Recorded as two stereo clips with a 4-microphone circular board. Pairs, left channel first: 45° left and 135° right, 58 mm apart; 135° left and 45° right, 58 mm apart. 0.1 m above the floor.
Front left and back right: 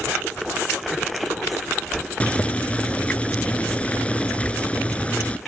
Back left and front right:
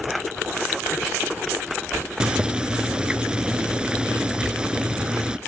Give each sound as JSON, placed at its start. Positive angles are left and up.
{"t": 2.2, "sound": "boiling", "azimuth_deg": 10, "distance_m": 0.5}